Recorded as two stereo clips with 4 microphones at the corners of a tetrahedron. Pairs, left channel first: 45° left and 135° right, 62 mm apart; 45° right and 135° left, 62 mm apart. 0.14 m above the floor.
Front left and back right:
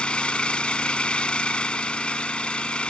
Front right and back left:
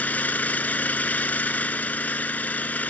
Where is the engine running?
10° right, 0.8 m.